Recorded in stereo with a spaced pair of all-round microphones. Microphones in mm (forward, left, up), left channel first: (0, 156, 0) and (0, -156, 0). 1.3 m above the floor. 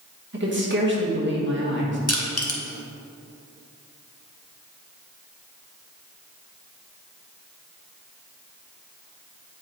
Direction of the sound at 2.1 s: 50° left (ahead or behind).